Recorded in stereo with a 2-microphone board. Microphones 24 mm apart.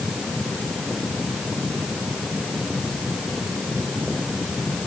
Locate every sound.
Only background noise.